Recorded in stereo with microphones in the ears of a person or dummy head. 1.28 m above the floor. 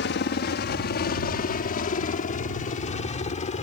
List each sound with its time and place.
0.0 s a helicopter: 55° left (ahead or behind); by 3.6 s 35° left (ahead or behind)